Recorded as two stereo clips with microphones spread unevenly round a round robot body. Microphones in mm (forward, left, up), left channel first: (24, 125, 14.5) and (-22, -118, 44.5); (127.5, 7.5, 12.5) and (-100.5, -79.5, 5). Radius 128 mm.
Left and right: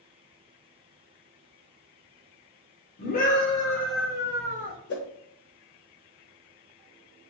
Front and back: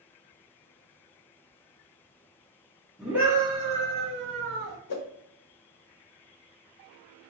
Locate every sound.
3.0 s a scream: 115° left, 1.5 m; by 4.8 s 155° right, 1.5 m
4.9 s a whoosh: 25° left, 0.9 m